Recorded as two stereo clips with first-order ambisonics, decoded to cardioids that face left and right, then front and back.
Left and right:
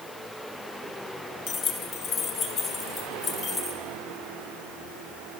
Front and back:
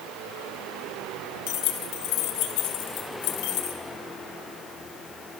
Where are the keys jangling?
35° left, 2.5 m; by 3.8 s 25° left, 4 m.